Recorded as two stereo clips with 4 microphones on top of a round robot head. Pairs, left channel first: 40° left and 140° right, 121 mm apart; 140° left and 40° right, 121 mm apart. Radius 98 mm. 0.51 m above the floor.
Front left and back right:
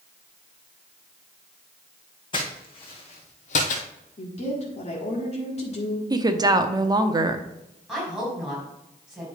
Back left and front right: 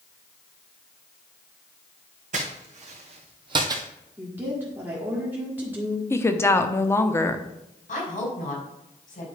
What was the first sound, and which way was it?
Footsteps, 10° right.